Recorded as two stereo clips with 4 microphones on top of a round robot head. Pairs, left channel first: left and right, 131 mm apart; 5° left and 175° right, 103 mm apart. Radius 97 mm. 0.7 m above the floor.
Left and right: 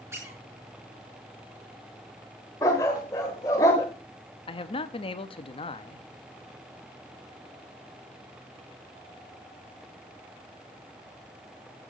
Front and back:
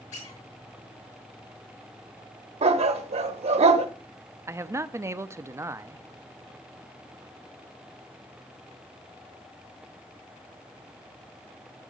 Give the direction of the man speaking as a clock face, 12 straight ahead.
8 o'clock.